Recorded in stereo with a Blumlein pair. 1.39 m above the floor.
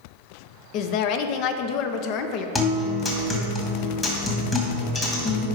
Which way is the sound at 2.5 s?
15° left.